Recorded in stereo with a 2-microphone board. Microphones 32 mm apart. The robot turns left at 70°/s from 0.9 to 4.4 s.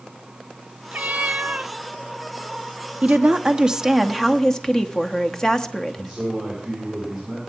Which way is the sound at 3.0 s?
105° right.